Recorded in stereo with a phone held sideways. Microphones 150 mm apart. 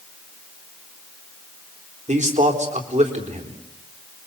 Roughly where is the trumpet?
I don't hear a trumpet.